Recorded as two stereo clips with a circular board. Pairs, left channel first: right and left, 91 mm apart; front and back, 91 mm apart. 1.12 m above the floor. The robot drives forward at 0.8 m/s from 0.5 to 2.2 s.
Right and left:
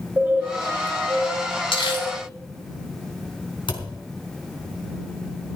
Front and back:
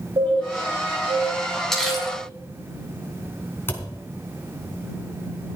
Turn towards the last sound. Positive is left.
turn(degrees=-65)